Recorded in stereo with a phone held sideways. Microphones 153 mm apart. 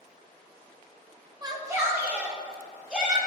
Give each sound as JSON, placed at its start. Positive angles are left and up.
{"t": 1.4, "sound": "a shout", "side_deg": -25, "distance_m": 1.1}